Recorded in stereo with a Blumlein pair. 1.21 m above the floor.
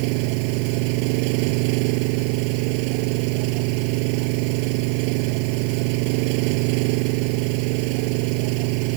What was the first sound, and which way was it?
An engine running, 45° right.